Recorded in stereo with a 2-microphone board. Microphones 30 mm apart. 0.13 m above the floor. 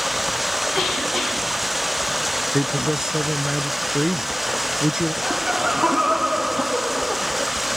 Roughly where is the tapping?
I don't hear tapping.